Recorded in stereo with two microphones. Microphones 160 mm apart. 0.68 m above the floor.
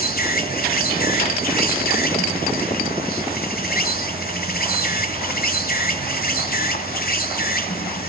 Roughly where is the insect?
Left.